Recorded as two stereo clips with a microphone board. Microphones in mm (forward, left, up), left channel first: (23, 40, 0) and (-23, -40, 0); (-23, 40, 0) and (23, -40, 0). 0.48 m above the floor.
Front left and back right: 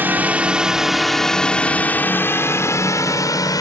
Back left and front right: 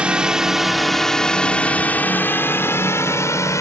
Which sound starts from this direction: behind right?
A drone, at 0.0 s.